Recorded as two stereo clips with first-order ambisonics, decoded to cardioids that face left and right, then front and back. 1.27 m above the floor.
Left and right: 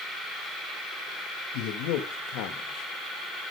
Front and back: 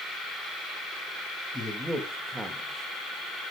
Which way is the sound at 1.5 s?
80° left.